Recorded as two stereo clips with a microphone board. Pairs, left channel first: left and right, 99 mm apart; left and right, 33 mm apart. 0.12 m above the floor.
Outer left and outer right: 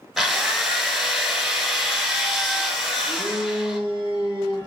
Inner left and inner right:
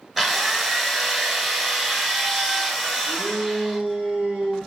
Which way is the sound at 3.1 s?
25° right (ahead or behind).